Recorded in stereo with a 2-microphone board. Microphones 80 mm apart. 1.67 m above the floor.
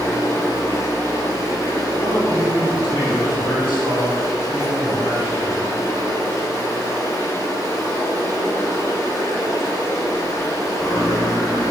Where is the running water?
40° left (ahead or behind), 2.5 m.